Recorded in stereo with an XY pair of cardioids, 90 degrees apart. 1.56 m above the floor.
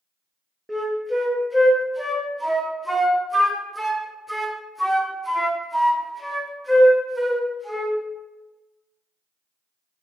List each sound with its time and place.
0.7 s a flute: 5° right, 0.5 m